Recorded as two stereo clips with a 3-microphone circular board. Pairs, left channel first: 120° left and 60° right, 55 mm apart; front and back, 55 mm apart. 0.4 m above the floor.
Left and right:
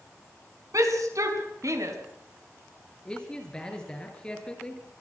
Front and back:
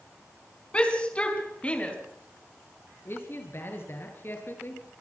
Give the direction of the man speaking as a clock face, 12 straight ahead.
10 o'clock.